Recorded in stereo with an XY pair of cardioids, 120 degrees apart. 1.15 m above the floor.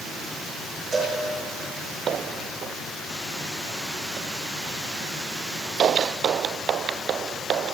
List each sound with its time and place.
0.9 s a cowbell: 35° right, 5 m